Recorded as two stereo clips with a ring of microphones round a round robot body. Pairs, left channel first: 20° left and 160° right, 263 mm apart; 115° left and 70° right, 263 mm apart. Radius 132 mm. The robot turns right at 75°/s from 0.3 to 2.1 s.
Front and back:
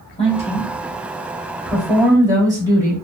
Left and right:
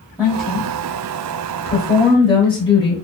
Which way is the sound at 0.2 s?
15° left.